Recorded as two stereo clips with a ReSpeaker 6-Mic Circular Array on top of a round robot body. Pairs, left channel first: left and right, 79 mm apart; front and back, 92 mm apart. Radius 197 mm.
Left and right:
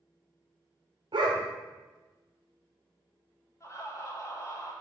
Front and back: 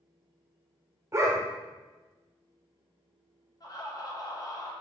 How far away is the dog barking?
About 1.1 m.